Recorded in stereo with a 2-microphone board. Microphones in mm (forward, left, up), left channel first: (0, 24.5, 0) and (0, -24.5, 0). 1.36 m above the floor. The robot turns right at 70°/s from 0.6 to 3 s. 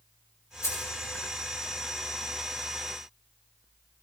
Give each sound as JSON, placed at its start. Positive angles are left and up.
{"t": 0.6, "sound": "keys jangling", "side_deg": 85, "distance_m": 5.0}